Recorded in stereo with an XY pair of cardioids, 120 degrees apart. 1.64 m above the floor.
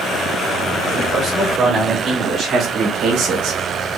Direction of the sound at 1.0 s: 35° right.